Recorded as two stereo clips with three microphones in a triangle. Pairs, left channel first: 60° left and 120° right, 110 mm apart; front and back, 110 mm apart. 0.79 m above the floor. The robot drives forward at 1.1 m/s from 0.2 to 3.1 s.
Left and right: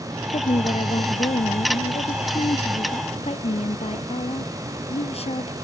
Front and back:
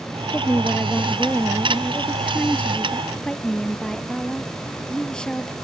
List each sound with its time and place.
0.3 s a woman speaking: 70° left; by 5.5 s 85° left